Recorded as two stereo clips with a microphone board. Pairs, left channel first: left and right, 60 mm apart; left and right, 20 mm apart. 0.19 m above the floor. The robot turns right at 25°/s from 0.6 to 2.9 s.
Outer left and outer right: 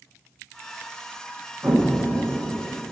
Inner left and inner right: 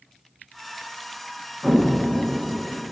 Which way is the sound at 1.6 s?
55° right (ahead or behind).